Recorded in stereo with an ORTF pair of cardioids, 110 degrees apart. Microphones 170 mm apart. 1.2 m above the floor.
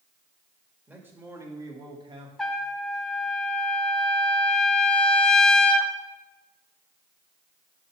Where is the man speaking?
10° right, 1.9 m; by 2.3 s 35° right, 1.5 m.